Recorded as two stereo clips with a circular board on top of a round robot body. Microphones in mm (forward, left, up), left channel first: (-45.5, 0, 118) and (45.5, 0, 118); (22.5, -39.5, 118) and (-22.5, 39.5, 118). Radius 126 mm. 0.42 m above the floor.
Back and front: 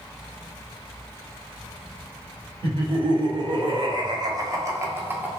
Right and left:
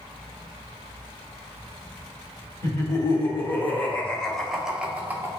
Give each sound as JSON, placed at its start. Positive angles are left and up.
{"t": 2.6, "sound": "laughter", "azimuth_deg": -10, "distance_m": 1.6}